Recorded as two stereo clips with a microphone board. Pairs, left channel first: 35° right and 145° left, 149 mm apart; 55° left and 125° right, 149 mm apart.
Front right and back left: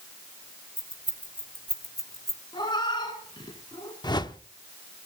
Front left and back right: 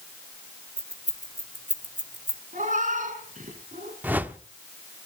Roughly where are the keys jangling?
Right.